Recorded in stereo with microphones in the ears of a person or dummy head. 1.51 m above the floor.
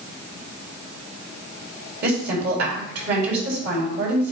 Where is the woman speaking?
60° right (ahead or behind), 4 m.